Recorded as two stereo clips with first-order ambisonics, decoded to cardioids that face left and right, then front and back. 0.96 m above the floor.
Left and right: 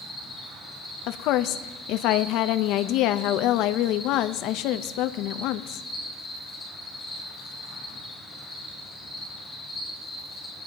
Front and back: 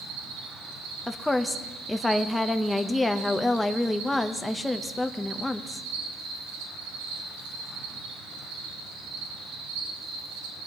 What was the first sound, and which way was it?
An insect, 170° left.